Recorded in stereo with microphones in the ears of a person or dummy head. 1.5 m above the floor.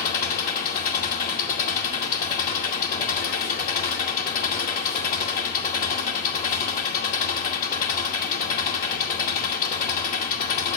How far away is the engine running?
About 2 m.